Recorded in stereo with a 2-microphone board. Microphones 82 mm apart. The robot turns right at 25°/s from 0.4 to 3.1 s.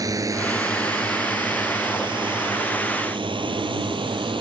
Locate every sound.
0.0 s a drone: 45° right (ahead or behind); by 4.4 s 80° right